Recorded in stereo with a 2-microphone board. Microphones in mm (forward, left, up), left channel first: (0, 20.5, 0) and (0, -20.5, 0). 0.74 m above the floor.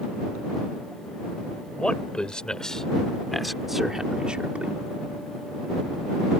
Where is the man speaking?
30° left (ahead or behind); by 4.8 s 35° right (ahead or behind).